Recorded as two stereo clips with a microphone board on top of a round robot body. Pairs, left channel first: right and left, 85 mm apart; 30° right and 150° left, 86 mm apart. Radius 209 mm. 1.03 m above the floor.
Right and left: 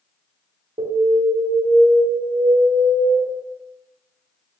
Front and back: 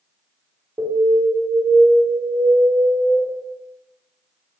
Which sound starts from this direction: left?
An alarm, at 0.8 s.